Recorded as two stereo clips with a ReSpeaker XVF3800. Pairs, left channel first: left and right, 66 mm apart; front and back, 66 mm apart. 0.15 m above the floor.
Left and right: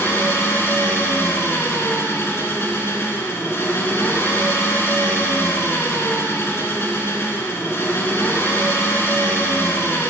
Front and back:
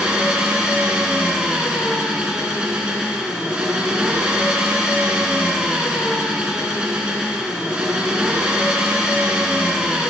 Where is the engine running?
110° left, 1.7 m.